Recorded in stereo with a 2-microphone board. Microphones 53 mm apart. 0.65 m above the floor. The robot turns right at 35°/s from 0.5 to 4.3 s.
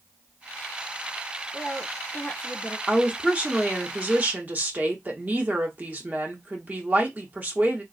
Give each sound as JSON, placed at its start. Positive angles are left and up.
{"t": 1.5, "sound": "a woman speaking", "azimuth_deg": 80, "distance_m": 1.0}
{"t": 2.9, "sound": "a woman speaking", "azimuth_deg": -155, "distance_m": 0.8}